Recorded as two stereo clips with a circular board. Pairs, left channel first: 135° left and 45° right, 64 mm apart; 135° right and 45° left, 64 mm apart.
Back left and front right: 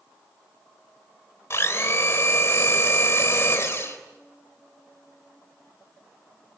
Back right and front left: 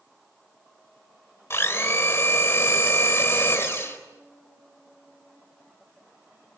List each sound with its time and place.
1.5 s a blender: 175° left, 3 m